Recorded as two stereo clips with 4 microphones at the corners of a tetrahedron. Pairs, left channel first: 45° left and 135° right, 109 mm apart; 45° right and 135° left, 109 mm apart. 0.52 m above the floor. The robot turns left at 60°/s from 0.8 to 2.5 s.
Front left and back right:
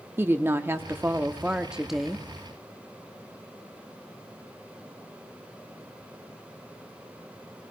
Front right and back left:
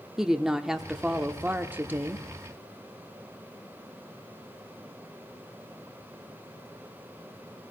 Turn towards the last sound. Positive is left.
turn(degrees=110)